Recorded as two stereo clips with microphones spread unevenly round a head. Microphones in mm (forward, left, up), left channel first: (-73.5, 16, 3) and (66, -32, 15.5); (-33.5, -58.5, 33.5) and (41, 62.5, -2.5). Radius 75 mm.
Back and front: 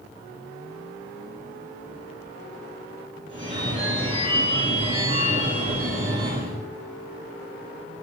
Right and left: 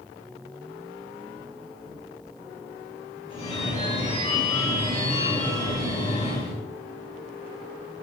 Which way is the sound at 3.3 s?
70° right.